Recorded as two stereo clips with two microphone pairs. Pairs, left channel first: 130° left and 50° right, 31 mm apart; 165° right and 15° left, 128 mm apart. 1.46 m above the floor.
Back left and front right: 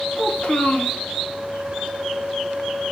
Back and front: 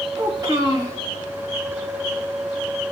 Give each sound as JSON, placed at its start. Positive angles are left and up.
{"t": 0.2, "sound": "a child speaking", "azimuth_deg": 75, "distance_m": 1.6}